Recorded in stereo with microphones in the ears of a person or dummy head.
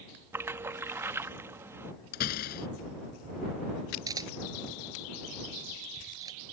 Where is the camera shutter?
20° right (ahead or behind).